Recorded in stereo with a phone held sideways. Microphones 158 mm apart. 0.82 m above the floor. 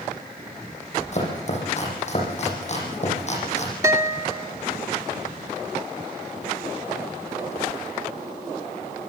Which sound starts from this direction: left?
Chopping, at 1.1 s.